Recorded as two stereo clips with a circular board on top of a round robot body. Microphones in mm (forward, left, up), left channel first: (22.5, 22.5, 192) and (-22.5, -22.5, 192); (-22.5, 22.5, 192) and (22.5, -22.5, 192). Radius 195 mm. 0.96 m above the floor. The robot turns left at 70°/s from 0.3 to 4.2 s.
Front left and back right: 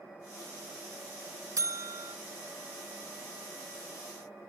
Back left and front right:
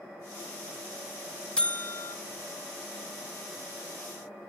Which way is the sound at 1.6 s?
150° right.